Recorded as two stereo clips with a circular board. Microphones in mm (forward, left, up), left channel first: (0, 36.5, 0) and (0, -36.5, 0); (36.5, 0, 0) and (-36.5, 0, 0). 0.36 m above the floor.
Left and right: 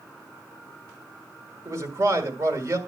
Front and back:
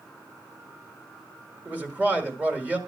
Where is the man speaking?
120° right, 1.8 m.